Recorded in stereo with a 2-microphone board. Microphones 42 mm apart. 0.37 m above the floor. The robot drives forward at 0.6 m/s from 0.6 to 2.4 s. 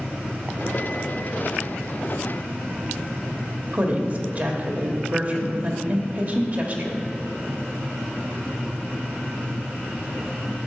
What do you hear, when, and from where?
3.7 s a woman speaking: 40° right (ahead or behind), 1.3 m